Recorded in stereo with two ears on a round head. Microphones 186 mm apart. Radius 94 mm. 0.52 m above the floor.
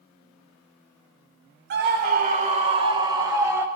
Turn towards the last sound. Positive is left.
turn(degrees=-15)  # may be behind; listen again after turning